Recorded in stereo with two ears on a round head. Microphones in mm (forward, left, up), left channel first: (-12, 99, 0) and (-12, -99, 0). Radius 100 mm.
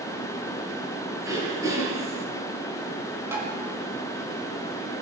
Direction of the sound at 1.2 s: 15° right (ahead or behind).